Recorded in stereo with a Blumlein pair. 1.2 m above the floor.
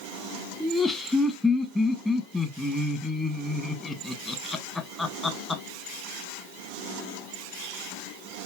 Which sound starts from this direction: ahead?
Laughter, at 0.6 s.